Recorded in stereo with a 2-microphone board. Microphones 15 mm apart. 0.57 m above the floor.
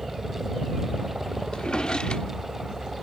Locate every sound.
0.0 s a helicopter: 50° right (ahead or behind); by 3.0 s 55° right (ahead or behind)
1.5 s a drawer: 65° left (ahead or behind)